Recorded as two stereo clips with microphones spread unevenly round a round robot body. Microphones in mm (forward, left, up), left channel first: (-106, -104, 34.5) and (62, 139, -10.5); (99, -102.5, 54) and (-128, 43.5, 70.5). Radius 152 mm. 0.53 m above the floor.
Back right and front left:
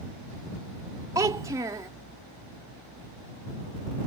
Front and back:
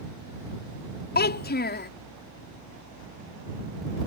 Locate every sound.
1.1 s a child speaking: 10° right